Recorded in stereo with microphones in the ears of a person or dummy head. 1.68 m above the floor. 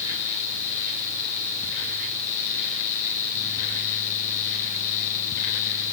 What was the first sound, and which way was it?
Only background noise.